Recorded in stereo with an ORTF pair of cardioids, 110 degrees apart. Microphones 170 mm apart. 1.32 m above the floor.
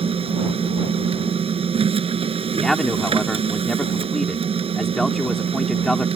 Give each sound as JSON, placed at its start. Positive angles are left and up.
{"t": 0.0, "sound": "a machine running", "azimuth_deg": -35}
{"t": 2.5, "sound": "a man speaking", "azimuth_deg": 0}